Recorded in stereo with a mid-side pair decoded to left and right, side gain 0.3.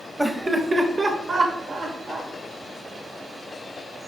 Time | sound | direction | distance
0.2 | laughter | 15° right | 0.7 m